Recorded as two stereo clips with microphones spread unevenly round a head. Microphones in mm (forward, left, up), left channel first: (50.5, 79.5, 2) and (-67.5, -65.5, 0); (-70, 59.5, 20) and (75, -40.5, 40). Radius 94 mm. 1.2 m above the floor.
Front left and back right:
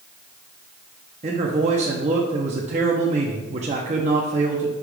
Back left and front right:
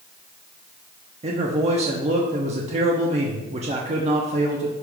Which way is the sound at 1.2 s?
85° right.